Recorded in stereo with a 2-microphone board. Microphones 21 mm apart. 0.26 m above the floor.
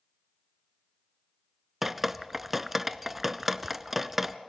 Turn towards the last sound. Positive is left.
turn(degrees=-10)  # may be behind; listen again after turning